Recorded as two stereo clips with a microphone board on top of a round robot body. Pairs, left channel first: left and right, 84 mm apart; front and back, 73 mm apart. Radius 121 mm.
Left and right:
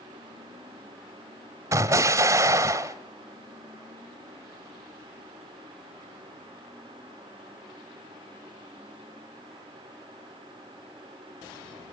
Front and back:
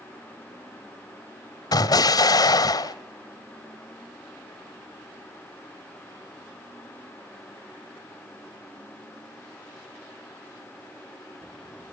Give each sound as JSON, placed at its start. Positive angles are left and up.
{"t": 1.7, "sound": "an explosion", "azimuth_deg": -35, "distance_m": 1.0}